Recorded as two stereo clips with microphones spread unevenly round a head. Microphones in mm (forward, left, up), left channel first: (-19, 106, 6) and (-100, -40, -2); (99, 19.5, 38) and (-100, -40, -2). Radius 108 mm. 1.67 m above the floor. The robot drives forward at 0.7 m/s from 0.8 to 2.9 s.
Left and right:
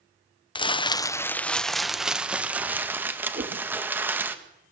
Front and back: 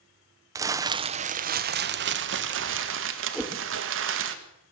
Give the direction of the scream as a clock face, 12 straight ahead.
I don't hear a scream.